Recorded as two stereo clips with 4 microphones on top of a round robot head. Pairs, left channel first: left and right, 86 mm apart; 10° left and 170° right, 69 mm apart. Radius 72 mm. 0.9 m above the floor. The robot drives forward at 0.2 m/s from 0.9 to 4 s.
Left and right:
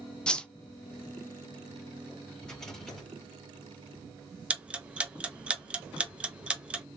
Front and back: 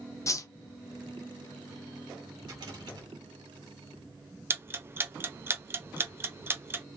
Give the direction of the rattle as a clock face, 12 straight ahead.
6 o'clock.